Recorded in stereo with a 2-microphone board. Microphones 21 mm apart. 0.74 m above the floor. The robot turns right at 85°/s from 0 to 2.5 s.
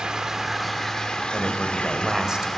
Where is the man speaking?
125° left, 2.5 m; by 2.5 s 135° right, 2.5 m.